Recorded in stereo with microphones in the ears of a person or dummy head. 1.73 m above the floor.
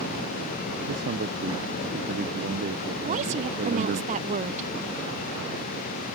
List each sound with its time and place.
0.9 s a man speaking: 55° right (ahead or behind)
3.0 s a woman speaking: 35° right (ahead or behind)